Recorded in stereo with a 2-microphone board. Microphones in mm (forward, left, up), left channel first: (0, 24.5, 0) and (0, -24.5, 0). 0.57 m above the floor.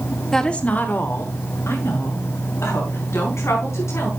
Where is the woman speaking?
10° left (ahead or behind), 1.1 m; by 4.1 s 80° left, 5.5 m.